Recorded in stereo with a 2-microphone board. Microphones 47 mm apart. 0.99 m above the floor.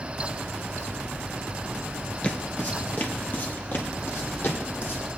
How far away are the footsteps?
About 1.0 m.